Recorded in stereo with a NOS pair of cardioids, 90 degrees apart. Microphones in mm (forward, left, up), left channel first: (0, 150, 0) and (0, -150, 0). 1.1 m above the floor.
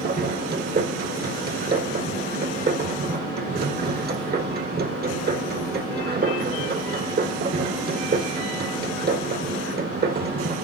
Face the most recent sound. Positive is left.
turn(degrees=-30)